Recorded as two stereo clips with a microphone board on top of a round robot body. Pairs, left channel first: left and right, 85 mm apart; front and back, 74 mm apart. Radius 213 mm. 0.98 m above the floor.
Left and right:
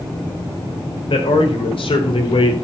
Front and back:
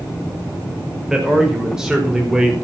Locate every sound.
1.1 s a man speaking: 100° left, 5.5 m